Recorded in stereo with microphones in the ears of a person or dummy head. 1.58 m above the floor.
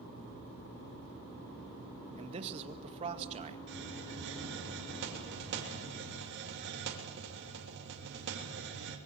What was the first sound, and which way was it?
A man speaking, 35° right (ahead or behind).